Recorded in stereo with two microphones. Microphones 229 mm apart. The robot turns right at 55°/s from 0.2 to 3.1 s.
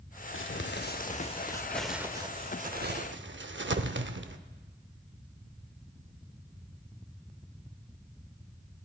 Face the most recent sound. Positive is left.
turn(degrees=-55)  # may be behind; listen again after turning